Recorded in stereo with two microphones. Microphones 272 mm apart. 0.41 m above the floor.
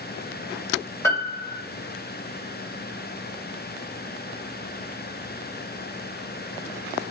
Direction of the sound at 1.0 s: 10° left (ahead or behind).